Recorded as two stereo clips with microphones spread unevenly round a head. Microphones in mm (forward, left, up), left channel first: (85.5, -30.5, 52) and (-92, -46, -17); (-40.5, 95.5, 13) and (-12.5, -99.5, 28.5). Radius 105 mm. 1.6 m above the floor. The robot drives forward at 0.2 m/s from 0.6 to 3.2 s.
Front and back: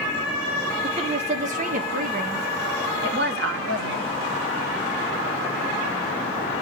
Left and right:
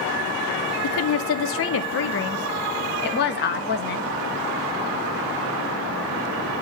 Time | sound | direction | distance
0.8 | a woman speaking | 110° left | 0.7 m